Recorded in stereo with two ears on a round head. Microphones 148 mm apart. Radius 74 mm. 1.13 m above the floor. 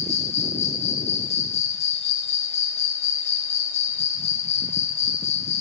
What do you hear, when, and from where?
0.0 s an insect: 40° left (ahead or behind), 1.4 m